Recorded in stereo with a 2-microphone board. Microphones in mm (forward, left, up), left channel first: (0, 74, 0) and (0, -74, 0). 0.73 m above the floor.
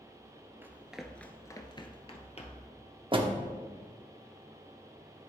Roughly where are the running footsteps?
Centre.